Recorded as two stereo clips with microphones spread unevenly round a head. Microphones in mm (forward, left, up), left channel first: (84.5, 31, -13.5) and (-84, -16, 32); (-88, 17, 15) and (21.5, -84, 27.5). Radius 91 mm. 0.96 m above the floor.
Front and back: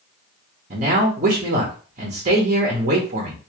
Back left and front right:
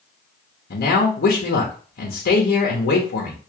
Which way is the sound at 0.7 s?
140° left.